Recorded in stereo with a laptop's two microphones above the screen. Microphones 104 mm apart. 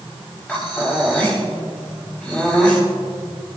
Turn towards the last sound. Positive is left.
turn(degrees=15)  # may be behind; listen again after turning